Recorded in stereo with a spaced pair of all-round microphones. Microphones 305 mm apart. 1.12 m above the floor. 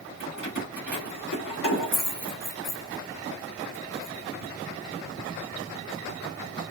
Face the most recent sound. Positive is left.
turn(degrees=85)